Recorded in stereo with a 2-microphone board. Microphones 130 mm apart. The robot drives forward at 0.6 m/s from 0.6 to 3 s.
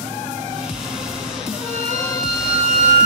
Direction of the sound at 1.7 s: 60° right (ahead or behind).